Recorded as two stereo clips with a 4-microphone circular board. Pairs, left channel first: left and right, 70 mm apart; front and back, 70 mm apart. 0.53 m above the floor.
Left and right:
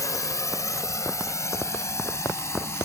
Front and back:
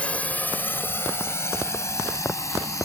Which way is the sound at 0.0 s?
70° left.